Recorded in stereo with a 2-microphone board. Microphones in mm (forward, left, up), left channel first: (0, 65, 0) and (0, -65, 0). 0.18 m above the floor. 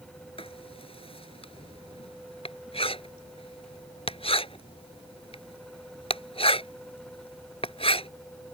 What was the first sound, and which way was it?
Writing, 50° left (ahead or behind).